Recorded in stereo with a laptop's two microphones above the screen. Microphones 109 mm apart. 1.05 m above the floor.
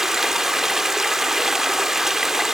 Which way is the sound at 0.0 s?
5° right (ahead or behind).